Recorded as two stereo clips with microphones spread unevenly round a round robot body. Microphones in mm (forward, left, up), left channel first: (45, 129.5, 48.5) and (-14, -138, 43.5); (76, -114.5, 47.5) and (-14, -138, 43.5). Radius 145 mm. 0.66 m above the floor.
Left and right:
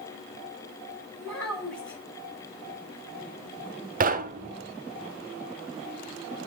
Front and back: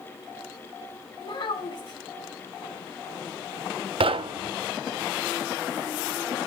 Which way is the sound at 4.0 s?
160° right.